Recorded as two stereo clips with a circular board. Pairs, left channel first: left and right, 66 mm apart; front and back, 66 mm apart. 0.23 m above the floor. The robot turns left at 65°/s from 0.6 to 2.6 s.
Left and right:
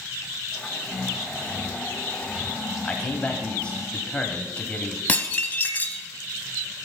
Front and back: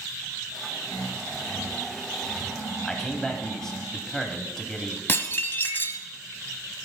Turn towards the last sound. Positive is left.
turn(degrees=35)